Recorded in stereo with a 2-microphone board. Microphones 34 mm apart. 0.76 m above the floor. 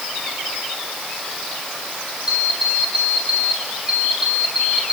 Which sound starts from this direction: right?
An alarm clock, at 2.3 s.